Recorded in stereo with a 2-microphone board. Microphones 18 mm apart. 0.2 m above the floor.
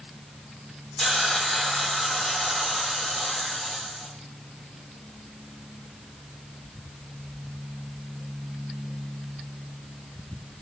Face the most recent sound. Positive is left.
turn(degrees=30)  # may be behind; listen again after turning